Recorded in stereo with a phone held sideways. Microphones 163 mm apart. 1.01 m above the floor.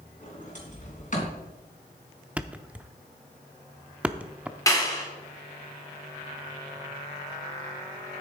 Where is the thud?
10° right (ahead or behind), 0.6 m.